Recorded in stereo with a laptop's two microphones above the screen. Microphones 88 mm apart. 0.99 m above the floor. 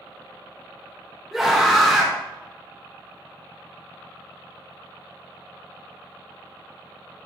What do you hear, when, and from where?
1.3 s a scream: 5° right (ahead or behind), 0.7 m